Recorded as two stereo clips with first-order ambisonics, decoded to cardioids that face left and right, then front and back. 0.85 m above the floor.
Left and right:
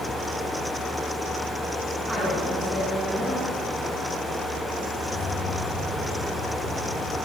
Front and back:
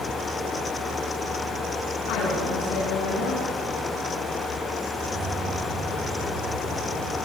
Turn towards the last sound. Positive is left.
turn(degrees=145)